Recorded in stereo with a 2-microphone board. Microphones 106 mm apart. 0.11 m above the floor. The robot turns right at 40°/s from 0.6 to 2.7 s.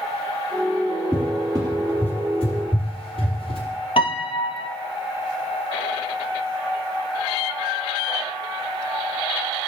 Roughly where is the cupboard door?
Right.